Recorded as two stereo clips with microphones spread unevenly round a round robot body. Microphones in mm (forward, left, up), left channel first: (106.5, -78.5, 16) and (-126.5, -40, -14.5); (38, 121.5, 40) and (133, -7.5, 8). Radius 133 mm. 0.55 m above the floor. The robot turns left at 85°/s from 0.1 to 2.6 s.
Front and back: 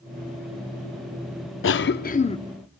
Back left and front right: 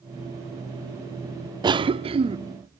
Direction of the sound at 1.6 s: 20° right.